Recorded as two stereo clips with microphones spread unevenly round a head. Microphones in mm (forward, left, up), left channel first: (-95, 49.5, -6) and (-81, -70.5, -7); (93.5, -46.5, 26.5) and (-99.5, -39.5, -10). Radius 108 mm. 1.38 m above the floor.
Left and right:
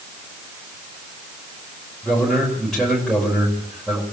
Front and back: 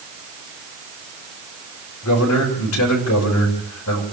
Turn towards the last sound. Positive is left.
turn(degrees=10)